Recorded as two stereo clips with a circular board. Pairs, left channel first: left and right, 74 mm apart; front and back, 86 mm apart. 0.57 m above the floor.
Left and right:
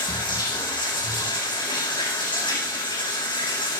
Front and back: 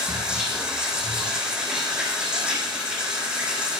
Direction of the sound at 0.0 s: 100° left.